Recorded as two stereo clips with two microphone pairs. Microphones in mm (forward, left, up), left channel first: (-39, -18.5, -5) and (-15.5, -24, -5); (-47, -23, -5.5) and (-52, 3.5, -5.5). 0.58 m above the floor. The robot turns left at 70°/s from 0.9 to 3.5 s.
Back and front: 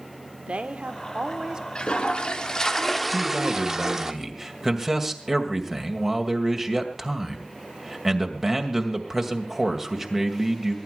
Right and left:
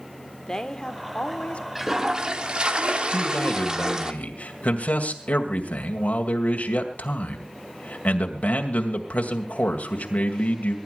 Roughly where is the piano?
I don't hear a piano.